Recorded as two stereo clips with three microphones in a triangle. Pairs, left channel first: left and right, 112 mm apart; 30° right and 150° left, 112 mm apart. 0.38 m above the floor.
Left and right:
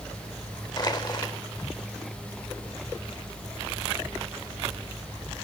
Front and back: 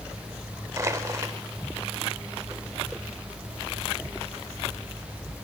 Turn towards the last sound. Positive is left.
turn(degrees=110)